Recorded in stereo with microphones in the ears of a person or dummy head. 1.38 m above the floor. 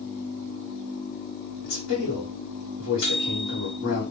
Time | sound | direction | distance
1.6 | a man speaking | 85° left | 1.2 m
3.0 | a microwave | 60° left (ahead or behind) | 1.3 m